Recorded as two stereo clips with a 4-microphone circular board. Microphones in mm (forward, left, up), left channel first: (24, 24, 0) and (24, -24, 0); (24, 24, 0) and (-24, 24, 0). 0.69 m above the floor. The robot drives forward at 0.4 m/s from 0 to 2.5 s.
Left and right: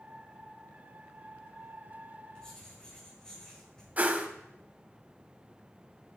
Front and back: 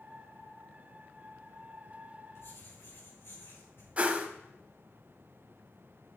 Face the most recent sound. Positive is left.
turn(degrees=-130)